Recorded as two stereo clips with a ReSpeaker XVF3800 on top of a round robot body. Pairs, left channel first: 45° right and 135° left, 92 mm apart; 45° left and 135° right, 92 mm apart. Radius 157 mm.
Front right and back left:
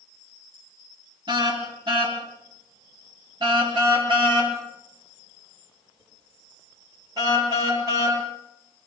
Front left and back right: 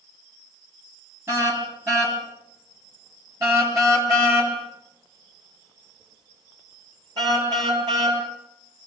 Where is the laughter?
No laughter in this recording.